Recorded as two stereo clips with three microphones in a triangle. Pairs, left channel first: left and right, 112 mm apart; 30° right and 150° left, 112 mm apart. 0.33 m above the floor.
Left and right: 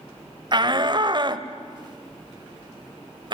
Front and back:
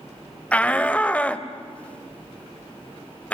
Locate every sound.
0.5 s a shout: 105° right, 1.3 m